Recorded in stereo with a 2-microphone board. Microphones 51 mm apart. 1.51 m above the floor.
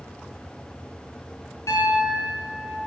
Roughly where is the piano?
Left.